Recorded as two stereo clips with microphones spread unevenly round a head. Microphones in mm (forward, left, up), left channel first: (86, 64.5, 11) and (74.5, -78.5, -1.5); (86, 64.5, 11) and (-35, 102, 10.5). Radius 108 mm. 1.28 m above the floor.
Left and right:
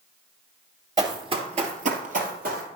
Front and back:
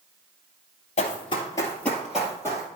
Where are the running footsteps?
35° right, 1.8 m; by 2.7 s 125° right, 2.5 m.